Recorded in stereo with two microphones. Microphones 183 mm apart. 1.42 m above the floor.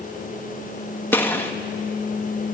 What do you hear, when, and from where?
1.1 s a gunshot: 10° left (ahead or behind), 1.9 m